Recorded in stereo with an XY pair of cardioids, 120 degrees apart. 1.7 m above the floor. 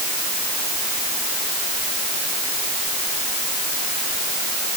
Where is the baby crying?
I don't hear a baby crying.